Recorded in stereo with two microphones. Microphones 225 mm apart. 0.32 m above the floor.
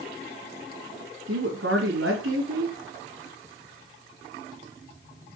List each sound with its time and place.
1.3 s a woman speaking: 65° right (ahead or behind), 2.5 m